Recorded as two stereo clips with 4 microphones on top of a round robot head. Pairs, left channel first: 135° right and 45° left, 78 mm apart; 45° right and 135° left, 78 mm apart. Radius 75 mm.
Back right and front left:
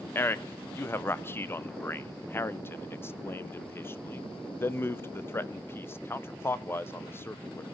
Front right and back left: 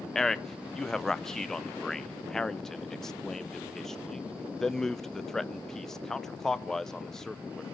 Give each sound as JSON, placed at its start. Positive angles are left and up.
{"t": 0.1, "sound": "a man speaking", "azimuth_deg": -125, "distance_m": 0.7}